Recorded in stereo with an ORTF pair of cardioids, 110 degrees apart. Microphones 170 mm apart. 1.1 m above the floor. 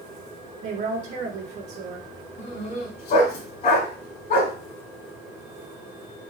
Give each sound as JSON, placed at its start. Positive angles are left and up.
{"t": 0.6, "sound": "a woman speaking", "azimuth_deg": -60, "distance_m": 1.3}
{"t": 2.4, "sound": "a dog barking", "azimuth_deg": 60, "distance_m": 1.8}